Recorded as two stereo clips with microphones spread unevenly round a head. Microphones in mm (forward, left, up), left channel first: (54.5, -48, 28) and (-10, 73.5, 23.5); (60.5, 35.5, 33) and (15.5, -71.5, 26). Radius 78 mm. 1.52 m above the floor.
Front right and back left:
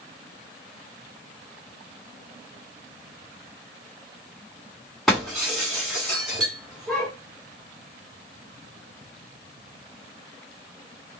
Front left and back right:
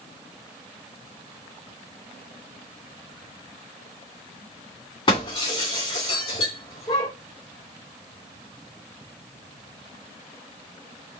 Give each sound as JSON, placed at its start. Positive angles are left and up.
{"t": 5.1, "sound": "breaking glass", "azimuth_deg": 30, "distance_m": 2.5}